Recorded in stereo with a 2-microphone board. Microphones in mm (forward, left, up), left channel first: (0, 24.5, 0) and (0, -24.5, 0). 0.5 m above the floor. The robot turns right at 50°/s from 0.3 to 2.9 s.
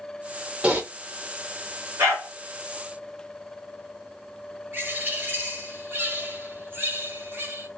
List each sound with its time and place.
0.6 s typing on a keyboard: 20° right (ahead or behind), 0.8 m; by 0.8 s 30° right (ahead or behind), 0.8 m
2.0 s a dog barking: 60° right (ahead or behind), 1.6 m; by 2.3 s 80° right, 1.6 m
4.7 s a bird: 50° right (ahead or behind), 2.0 m